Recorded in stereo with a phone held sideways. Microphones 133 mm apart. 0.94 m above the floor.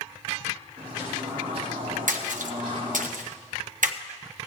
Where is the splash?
75° right (ahead or behind), 0.8 m.